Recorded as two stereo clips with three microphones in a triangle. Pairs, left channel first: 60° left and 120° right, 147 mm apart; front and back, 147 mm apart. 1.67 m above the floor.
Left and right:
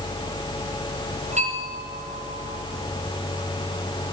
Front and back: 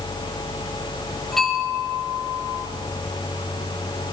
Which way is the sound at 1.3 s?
85° right.